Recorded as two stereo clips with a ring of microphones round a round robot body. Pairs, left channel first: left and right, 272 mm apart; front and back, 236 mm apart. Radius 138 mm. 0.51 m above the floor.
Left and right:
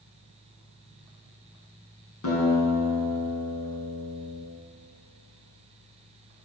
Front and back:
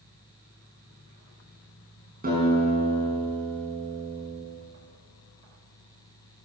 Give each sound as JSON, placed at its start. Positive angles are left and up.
{"t": 2.2, "sound": "a guitar", "azimuth_deg": 130, "distance_m": 6.0}